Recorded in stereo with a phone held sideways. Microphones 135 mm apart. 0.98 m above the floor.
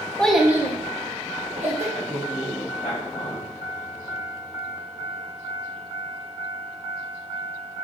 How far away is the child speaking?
About 0.6 m.